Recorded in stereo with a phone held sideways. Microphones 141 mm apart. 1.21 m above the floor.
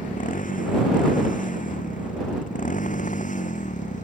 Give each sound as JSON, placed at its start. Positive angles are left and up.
{"t": 0.0, "sound": "a motorcycle", "side_deg": 80}